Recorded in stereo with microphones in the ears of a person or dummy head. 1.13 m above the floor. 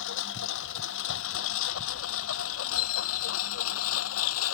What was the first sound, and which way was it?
A lawn mower, 75° left (ahead or behind).